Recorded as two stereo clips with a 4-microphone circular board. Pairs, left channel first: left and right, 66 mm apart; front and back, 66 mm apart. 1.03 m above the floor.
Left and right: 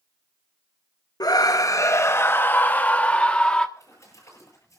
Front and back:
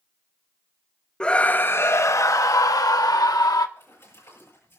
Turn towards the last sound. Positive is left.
turn(degrees=50)